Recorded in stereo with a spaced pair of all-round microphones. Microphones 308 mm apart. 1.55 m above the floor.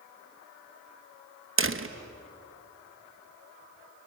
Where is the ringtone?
I don't hear a ringtone.